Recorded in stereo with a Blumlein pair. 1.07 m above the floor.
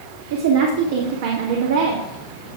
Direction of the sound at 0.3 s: 55° right.